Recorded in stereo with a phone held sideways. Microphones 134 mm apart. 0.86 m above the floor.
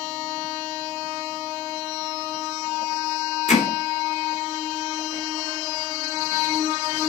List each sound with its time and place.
3.5 s hammering: 65° left (ahead or behind), 2.5 m